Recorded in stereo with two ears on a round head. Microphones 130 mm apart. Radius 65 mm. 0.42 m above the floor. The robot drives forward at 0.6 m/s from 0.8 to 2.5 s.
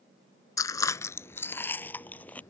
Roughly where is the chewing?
Left.